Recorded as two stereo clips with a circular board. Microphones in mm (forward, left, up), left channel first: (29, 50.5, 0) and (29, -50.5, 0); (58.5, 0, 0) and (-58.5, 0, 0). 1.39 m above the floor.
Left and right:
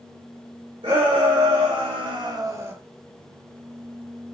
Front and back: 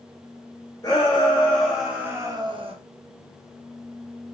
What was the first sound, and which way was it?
A shout, 60° right.